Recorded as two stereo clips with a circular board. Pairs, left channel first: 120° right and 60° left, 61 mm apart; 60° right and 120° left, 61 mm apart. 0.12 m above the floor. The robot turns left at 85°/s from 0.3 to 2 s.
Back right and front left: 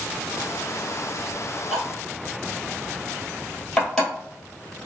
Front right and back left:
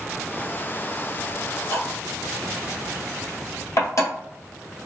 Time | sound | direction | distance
1.7 | cutlery clinking | 20° right | 1.8 m